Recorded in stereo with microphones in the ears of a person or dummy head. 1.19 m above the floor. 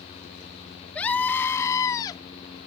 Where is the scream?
5° left (ahead or behind); by 2.2 s 20° left (ahead or behind).